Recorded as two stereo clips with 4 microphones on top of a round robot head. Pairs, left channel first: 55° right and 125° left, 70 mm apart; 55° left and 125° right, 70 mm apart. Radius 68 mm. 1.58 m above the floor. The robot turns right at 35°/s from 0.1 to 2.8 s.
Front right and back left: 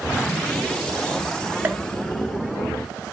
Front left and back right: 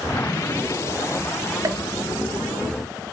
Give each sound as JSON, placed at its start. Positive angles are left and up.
{"t": 1.6, "sound": "a pop", "azimuth_deg": -170, "distance_m": 0.5}